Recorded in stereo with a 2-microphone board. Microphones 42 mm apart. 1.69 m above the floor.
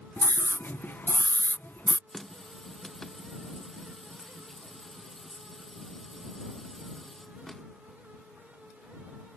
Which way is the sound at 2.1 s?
10° left (ahead or behind).